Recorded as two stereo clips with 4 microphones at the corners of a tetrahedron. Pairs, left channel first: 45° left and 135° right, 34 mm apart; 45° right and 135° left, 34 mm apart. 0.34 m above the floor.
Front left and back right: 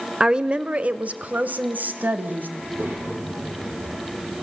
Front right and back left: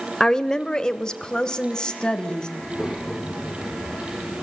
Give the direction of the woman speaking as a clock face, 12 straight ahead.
3 o'clock.